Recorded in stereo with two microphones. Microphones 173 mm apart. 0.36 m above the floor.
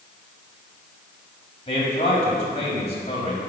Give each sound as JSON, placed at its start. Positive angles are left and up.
{"t": 1.7, "sound": "a man speaking", "side_deg": 35, "distance_m": 2.0}